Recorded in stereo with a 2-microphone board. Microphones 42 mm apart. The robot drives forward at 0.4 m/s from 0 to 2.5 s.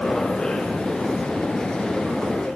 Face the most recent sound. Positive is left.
No sound to turn to.